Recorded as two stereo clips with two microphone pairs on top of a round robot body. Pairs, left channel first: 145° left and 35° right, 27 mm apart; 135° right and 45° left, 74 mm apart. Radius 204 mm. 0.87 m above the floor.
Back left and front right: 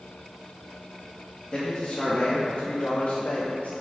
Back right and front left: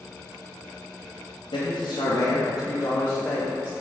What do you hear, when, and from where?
1.5 s a man speaking: 145° right, 1.6 m; by 3.7 s 140° left, 1.4 m